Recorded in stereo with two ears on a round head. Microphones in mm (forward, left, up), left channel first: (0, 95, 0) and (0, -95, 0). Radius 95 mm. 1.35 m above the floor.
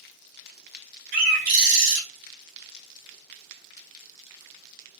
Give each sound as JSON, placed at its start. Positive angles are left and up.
{"t": 1.1, "sound": "a bird", "side_deg": -40, "distance_m": 0.9}